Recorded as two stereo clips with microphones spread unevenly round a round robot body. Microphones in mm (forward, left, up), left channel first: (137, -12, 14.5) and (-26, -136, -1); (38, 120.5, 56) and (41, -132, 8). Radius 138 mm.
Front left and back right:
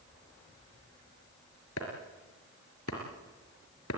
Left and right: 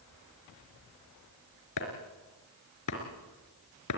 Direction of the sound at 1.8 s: 80° left.